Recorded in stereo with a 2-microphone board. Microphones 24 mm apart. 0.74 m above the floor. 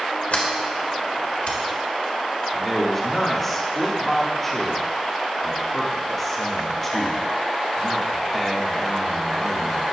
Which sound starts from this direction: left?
A sliding door, at 0.3 s.